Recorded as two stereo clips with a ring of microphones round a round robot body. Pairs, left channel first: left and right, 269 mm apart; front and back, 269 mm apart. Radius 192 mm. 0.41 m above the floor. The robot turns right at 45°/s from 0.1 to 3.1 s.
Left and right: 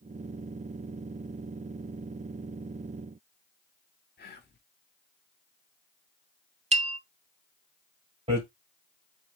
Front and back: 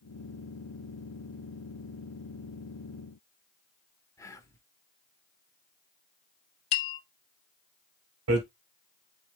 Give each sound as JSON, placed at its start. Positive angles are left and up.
{"t": 4.2, "sound": "whispering", "azimuth_deg": 70, "distance_m": 1.2}
{"t": 6.7, "sound": "a bell", "azimuth_deg": -20, "distance_m": 1.1}
{"t": 8.3, "sound": "hammering", "azimuth_deg": -160, "distance_m": 2.0}